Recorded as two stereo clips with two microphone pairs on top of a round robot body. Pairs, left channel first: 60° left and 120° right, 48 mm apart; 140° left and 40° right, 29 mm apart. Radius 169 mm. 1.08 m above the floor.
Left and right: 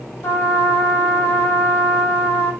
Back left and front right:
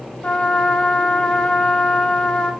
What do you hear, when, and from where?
0.2 s a trumpet: 95° left, 1.3 m